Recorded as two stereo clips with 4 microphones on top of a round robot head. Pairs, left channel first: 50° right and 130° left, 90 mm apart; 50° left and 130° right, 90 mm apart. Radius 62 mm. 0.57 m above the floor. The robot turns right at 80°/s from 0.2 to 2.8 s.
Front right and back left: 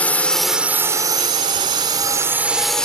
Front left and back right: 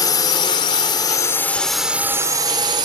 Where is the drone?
20° left; by 2.9 s 135° right.